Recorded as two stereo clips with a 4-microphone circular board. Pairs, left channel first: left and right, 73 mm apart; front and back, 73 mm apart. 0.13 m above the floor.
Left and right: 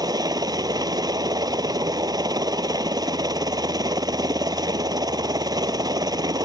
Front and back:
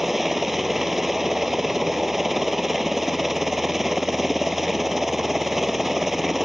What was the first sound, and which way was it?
A helicopter, 95° right.